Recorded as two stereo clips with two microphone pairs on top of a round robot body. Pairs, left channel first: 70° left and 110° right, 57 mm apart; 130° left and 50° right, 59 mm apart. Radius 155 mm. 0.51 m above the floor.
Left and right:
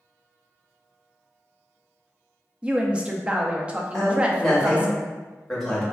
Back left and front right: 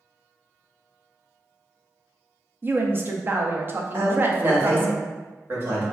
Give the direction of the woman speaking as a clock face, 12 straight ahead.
2 o'clock.